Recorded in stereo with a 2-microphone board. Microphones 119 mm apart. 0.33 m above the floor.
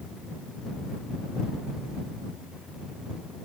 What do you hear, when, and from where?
Only background noise.